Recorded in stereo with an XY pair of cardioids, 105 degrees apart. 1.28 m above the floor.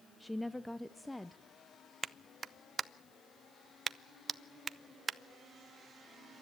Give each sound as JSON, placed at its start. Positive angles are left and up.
{"t": 0.2, "sound": "a woman speaking", "azimuth_deg": 5, "distance_m": 0.5}
{"t": 2.0, "sound": "a clap", "azimuth_deg": -35, "distance_m": 0.6}